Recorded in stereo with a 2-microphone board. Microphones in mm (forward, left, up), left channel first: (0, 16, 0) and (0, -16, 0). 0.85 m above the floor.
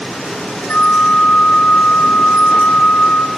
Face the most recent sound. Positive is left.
turn(degrees=50)  # may be behind; listen again after turning